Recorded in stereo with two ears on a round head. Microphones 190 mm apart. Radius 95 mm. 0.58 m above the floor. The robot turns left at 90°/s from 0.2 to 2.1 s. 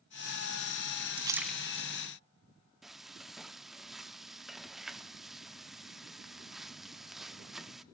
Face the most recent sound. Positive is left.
turn(degrees=0)  # may be behind; listen again after turning